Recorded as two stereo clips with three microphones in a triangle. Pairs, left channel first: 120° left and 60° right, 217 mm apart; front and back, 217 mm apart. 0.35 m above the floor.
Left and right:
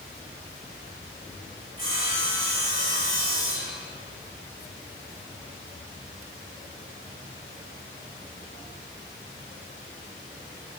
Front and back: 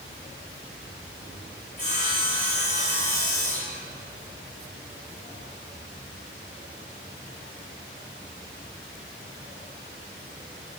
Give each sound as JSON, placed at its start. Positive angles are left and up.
{"t": 1.8, "sound": "sawing", "azimuth_deg": -50, "distance_m": 2.0}